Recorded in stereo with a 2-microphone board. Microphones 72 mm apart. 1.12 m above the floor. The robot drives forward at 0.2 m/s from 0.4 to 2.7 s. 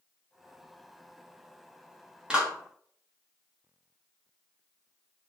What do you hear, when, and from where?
2.3 s a clap: 15° right (ahead or behind), 0.8 m; by 2.5 s 10° right (ahead or behind), 0.9 m